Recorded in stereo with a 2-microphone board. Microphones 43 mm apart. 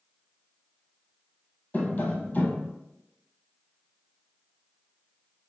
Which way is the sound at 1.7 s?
35° left (ahead or behind).